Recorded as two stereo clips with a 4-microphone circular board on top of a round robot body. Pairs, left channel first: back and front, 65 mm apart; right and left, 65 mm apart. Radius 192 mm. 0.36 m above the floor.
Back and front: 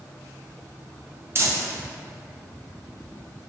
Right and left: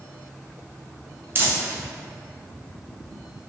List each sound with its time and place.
1.4 s crumpling: 40° left, 0.6 m